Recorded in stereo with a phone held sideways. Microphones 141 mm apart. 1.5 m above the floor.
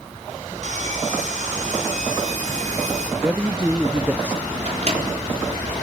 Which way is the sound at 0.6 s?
55° right (ahead or behind).